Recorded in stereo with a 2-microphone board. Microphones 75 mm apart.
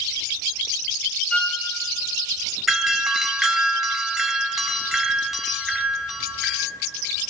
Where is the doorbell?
5° right (ahead or behind), 1.3 m.